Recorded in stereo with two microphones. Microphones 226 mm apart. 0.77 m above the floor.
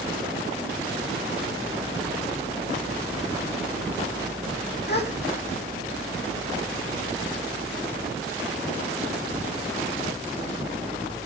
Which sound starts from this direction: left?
A gasp, at 4.9 s.